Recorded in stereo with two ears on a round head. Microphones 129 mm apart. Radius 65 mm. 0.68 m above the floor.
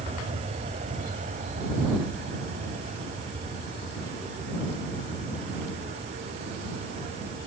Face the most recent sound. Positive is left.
turn(degrees=-75)  # may be behind; listen again after turning